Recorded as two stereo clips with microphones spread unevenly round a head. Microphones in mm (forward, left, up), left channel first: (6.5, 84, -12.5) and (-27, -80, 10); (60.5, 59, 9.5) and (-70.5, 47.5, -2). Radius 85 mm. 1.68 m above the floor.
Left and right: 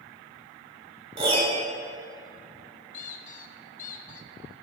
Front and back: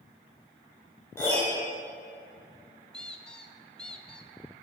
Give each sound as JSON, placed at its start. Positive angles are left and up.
{"t": 1.2, "sound": "a piano", "azimuth_deg": -60, "distance_m": 1.9}
{"t": 2.9, "sound": "a squeak", "azimuth_deg": 80, "distance_m": 0.6}